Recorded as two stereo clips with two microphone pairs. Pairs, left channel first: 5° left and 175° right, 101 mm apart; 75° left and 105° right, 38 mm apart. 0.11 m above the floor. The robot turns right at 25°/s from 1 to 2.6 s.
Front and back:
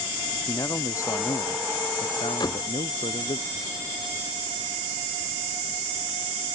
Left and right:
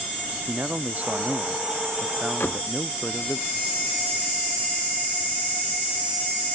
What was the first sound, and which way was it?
A man speaking, 55° right.